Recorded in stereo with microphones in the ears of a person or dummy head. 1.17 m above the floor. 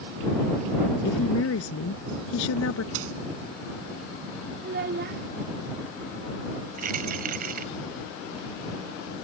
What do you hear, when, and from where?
1.0 s a woman speaking: 75° left (ahead or behind)
2.9 s a dropped coin: 80° right
4.6 s a child speaking: 50° right (ahead or behind)
6.8 s keys jangling: 55° right (ahead or behind)